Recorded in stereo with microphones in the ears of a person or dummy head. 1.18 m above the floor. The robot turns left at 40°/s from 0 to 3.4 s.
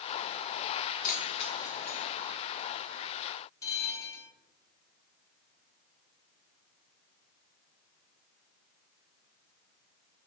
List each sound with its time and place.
1.0 s keys jangling: 45° left (ahead or behind), 0.7 m; by 2.3 s 5° right (ahead or behind), 0.7 m
3.6 s a bell: 15° left (ahead or behind), 0.6 m